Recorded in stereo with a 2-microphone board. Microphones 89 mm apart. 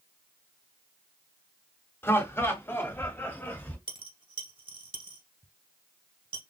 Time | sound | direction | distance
2.0 | laughter | 25° left (ahead or behind) | 1.3 m
3.9 | a dropped coin | 65° right (ahead or behind) | 1.1 m